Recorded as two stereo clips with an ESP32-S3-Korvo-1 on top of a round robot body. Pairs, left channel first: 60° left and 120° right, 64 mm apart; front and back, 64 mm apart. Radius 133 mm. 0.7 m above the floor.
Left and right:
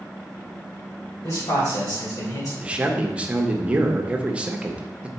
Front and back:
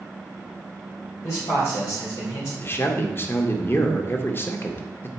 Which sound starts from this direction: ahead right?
A man speaking, at 2.6 s.